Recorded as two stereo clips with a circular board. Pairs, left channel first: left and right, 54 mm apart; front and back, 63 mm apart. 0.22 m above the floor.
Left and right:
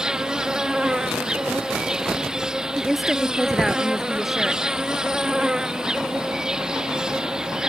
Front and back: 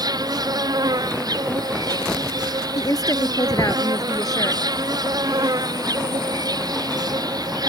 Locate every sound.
0.0 s an insect: 165° right
2.8 s a woman speaking: straight ahead